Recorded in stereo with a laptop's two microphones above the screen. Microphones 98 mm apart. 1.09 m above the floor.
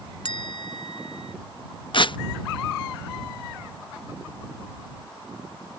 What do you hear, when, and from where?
0.2 s a bell: 60° left (ahead or behind)
1.9 s tearing paper: 55° left (ahead or behind)